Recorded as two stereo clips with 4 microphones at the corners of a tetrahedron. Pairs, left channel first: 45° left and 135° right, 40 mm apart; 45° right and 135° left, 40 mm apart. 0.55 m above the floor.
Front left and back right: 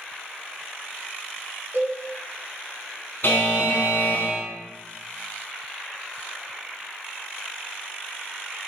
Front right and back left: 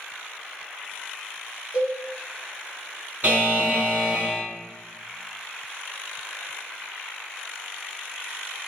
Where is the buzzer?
85° left, 1.3 m.